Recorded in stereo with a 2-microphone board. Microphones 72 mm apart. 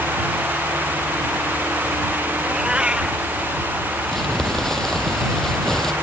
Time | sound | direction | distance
2.4 | a cat meowing | 15° right (ahead or behind) | ?
4.1 | crumpling | 5° left (ahead or behind) | ?